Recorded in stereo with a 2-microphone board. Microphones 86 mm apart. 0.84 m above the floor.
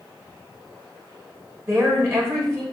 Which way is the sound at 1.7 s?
30° right (ahead or behind).